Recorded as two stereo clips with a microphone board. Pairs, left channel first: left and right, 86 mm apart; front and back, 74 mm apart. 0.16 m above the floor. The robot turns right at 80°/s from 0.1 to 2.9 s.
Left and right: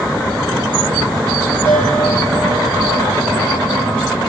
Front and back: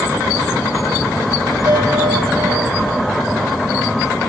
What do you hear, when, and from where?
1.6 s a bell: 155° left, 5.5 m; by 4.0 s 105° right, 5.5 m